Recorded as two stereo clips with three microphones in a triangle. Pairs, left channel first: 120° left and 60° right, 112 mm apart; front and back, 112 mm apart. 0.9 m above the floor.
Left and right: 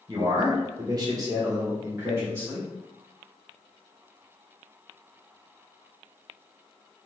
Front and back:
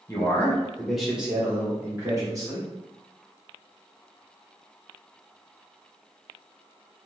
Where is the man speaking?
45° right, 1.0 m; by 2.7 s 135° right, 1.5 m.